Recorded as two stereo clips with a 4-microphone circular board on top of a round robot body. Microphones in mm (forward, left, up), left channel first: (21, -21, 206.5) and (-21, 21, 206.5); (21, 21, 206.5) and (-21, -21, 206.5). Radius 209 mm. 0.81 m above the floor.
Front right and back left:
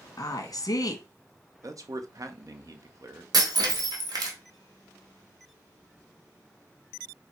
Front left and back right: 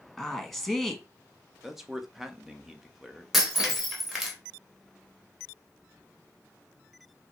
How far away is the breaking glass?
About 1.4 m.